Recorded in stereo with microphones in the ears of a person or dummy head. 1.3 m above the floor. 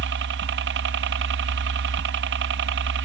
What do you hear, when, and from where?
0.0 s a helicopter: 60° right (ahead or behind)